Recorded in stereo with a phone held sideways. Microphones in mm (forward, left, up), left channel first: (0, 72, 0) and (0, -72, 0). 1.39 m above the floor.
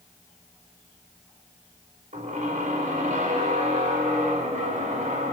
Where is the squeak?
60° right (ahead or behind), 5 m.